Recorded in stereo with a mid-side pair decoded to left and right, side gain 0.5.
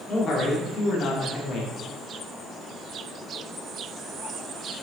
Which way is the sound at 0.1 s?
50° left.